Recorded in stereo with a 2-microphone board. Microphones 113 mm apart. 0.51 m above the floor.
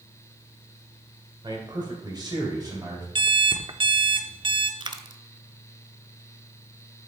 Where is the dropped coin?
40° right (ahead or behind), 0.6 m.